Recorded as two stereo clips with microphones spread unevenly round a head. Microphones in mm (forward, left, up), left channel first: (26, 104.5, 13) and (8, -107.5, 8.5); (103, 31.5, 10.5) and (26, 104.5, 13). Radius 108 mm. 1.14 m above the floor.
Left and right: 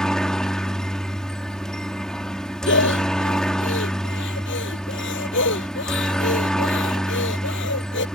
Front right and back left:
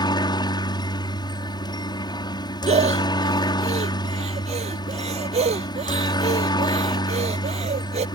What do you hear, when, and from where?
0.0 s a helicopter: straight ahead
2.7 s breathing: 125° left